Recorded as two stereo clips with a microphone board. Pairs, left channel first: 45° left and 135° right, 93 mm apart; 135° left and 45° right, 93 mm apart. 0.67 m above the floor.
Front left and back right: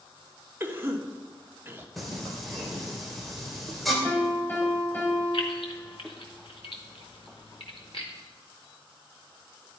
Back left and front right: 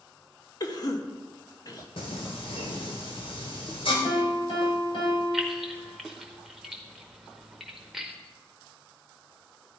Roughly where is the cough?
Behind.